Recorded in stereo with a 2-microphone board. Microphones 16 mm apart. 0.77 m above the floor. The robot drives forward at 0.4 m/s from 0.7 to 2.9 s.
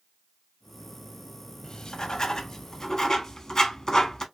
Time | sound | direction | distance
1.6 | writing | 50° left (ahead or behind) | 0.5 m